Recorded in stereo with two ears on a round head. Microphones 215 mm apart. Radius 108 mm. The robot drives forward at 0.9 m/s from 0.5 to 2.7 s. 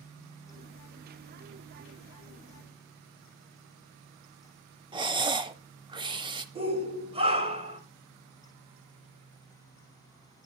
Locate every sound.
4.9 s breathing: 20° right (ahead or behind), 0.7 m
6.5 s a shout: 25° right (ahead or behind), 2.5 m